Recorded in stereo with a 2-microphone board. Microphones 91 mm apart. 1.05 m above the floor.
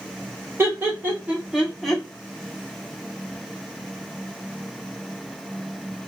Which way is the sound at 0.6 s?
30° right (ahead or behind).